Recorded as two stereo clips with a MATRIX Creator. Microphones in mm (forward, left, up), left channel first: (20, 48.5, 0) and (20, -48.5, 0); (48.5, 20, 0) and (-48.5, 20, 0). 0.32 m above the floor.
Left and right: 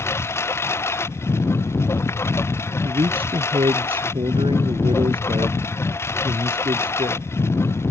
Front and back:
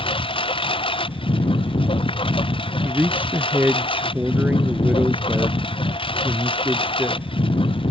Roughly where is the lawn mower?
Ahead left.